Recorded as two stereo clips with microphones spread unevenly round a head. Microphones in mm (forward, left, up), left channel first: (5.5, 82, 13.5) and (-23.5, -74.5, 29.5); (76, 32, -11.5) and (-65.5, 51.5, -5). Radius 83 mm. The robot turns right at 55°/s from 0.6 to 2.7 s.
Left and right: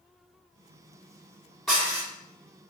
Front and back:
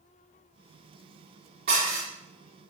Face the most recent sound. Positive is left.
turn(degrees=-135)